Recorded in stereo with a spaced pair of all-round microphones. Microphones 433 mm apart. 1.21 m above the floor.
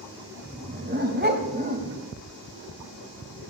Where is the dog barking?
20° right (ahead or behind), 1.4 m.